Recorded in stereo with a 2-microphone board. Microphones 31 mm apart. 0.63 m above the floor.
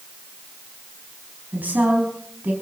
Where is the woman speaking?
70° right (ahead or behind), 4.5 m.